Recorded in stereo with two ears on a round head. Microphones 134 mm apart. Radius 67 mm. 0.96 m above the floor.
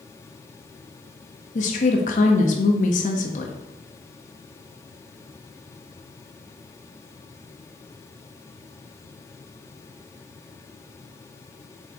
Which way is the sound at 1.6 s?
50° left (ahead or behind).